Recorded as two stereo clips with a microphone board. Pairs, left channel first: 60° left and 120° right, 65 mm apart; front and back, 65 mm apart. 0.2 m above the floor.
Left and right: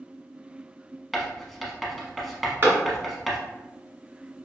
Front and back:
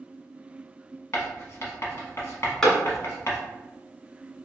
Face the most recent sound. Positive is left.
turn(degrees=-75)